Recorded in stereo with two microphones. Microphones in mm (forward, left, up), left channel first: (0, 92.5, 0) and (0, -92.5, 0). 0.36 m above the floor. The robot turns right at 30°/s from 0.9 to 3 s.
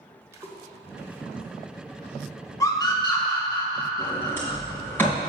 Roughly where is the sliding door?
Centre.